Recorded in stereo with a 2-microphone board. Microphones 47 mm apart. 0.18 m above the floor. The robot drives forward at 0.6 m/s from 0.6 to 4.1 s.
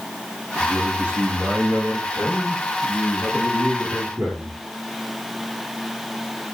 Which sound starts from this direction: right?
A man speaking, at 0.6 s.